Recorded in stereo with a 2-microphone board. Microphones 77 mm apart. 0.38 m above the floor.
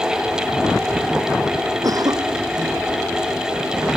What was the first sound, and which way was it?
A cough, 55° right (ahead or behind).